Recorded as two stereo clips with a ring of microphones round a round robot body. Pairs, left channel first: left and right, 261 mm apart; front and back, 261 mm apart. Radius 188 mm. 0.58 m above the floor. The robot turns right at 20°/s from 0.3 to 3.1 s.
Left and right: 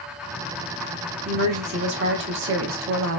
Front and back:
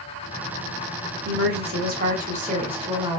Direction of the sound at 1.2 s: 145° right.